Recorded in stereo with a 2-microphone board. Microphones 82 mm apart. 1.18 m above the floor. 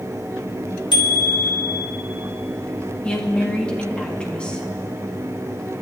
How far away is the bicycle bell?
About 2.5 m.